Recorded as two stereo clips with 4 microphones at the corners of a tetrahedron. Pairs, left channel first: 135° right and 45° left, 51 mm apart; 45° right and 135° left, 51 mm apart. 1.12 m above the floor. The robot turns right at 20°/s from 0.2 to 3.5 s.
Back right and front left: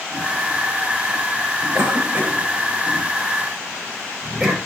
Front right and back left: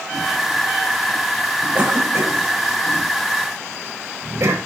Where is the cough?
90° left, 3.5 m; by 4.6 s 125° left, 3.5 m.